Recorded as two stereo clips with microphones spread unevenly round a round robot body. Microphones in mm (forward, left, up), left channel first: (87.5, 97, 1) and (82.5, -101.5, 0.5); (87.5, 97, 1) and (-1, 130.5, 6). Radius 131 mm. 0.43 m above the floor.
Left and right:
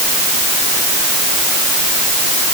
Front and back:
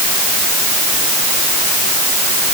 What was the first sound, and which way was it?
Only background noise.